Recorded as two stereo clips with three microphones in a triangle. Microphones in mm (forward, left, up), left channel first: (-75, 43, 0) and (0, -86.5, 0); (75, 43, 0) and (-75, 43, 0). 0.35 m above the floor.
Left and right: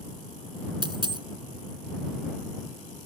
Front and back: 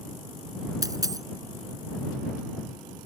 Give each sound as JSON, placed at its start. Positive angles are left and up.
{"t": 0.8, "sound": "a dropped coin", "azimuth_deg": -115}